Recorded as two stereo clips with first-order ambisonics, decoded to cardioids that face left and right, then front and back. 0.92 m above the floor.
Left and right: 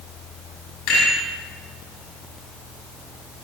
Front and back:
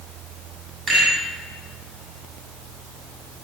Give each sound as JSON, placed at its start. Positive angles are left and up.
{"t": 0.9, "sound": "a rattle", "azimuth_deg": 115, "distance_m": 6.5}